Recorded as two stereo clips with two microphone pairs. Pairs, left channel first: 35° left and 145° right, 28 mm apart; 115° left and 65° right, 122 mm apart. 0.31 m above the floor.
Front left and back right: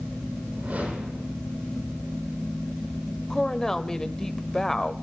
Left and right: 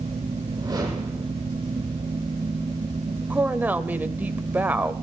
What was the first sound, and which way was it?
A whoosh, 125° right.